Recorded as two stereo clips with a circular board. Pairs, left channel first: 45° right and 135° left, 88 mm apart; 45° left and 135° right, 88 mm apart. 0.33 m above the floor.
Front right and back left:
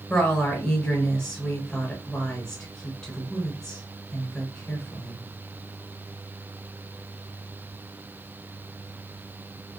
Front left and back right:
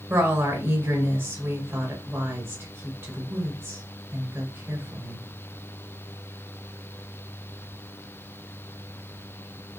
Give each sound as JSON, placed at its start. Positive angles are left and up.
{"t": 0.1, "sound": "a woman speaking", "azimuth_deg": -120, "distance_m": 1.5}